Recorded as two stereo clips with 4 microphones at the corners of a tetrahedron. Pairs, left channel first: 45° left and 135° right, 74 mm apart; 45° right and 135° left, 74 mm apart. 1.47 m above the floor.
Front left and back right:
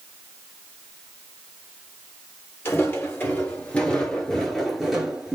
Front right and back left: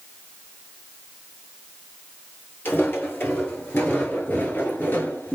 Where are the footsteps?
5° left, 2 m; by 5.4 s 70° right, 1.5 m.